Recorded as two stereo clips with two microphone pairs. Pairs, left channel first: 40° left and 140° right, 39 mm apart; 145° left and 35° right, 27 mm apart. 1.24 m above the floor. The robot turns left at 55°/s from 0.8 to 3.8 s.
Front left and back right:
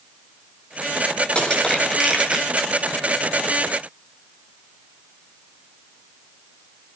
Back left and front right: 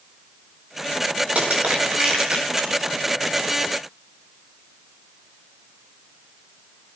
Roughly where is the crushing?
Ahead.